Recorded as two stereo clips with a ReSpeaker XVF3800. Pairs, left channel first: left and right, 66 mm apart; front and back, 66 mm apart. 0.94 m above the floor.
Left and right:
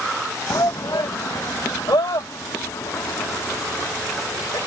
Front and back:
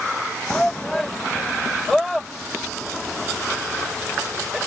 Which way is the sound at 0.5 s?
75° left.